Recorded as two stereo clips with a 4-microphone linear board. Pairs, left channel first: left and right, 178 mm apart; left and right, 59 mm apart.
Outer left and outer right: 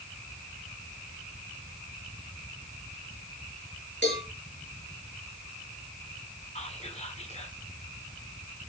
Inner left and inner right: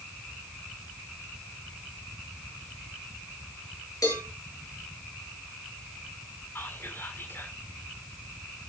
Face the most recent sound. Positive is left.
turn(degrees=40)  # may be behind; listen again after turning